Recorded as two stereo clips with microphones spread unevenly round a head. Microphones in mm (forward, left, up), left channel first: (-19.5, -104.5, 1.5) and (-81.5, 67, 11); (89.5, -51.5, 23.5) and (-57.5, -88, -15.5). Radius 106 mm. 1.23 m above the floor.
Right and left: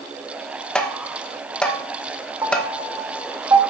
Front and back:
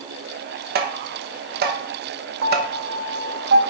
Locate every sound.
0.8 s tapping: 155° right, 1.0 m
2.4 s a piano: straight behind, 1.2 m